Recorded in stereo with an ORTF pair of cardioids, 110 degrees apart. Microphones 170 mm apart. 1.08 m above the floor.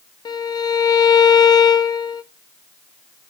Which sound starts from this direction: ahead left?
A violin, at 0.2 s.